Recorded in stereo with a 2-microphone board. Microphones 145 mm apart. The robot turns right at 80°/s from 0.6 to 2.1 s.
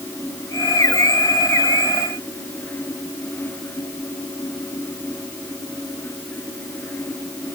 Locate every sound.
Only background noise.